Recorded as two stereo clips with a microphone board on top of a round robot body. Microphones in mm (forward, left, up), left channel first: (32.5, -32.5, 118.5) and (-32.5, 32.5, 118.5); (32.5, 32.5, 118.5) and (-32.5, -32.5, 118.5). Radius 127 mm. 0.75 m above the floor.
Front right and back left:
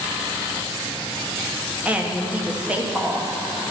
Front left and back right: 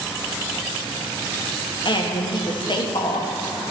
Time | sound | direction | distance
1.9 | a woman speaking | 60° left | 1.6 m